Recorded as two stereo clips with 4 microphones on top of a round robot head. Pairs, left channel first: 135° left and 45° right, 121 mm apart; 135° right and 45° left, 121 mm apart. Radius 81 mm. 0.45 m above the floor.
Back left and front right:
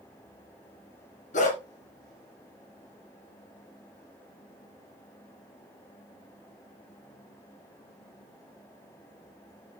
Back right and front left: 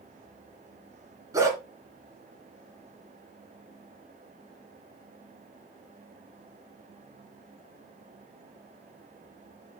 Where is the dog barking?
110° left, 2.5 m.